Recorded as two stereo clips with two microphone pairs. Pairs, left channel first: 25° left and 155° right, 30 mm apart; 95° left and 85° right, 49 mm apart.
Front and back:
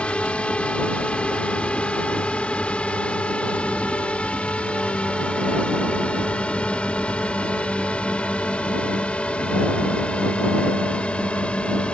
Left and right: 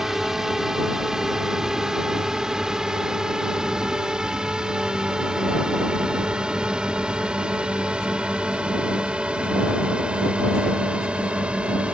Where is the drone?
5° right; by 11.9 s 20° right.